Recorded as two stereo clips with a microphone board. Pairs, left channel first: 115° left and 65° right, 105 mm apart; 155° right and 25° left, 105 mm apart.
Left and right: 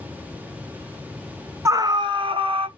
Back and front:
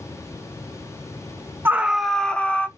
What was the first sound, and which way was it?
A scream, 35° right.